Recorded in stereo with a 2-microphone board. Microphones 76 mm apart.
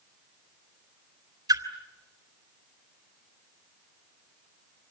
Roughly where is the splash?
Right.